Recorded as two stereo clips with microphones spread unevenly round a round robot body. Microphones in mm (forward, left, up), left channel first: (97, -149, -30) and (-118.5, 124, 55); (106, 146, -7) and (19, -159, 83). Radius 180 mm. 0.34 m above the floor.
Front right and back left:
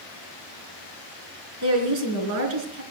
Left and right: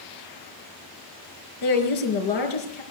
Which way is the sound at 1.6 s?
85° left.